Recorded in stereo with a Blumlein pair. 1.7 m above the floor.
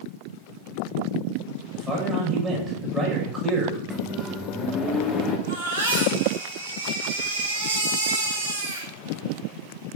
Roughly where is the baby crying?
Ahead right.